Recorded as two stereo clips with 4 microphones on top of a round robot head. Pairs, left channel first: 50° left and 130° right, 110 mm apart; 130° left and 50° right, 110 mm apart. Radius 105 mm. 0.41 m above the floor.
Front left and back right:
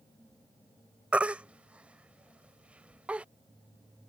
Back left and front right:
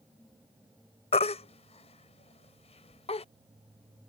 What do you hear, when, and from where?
1.1 s a baby crying: 150° left